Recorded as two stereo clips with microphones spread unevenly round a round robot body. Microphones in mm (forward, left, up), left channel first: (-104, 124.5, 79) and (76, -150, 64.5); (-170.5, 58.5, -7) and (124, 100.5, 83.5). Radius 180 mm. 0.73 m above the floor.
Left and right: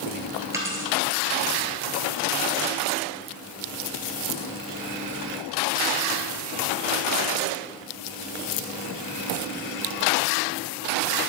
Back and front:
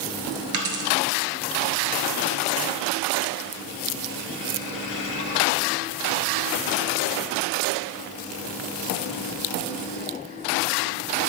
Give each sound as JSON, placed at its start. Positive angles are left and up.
{"t": 0.5, "sound": "a dropped coin", "azimuth_deg": 25, "distance_m": 1.3}